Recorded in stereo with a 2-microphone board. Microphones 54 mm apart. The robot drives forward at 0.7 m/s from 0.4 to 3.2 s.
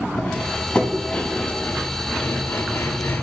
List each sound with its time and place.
0.2 s cutlery clinking: 20° left (ahead or behind), 1.7 m; by 3.2 s 45° left (ahead or behind), 0.8 m